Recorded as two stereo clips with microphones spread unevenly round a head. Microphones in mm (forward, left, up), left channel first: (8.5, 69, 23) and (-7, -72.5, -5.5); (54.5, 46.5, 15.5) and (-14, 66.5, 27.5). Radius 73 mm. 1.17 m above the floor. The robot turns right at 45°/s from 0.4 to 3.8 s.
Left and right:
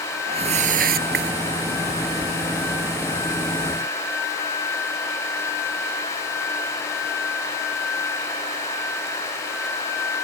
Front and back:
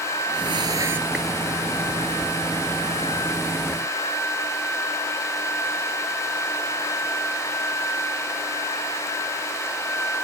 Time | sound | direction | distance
0.3 | a whoosh | 145° right | ?